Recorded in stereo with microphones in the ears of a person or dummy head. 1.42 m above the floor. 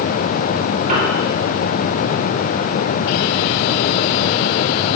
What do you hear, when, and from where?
0.9 s a piano: 45° right (ahead or behind), 4.5 m